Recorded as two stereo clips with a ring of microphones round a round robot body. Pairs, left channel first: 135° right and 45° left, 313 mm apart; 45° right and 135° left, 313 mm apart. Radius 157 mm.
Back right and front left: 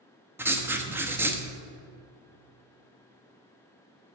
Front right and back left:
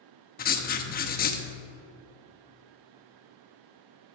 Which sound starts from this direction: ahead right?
Writing, at 0.4 s.